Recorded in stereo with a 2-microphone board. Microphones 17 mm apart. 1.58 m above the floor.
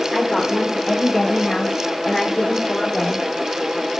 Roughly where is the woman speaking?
Left.